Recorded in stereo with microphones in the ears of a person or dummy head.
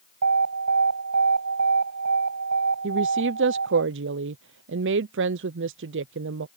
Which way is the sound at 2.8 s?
55° right (ahead or behind).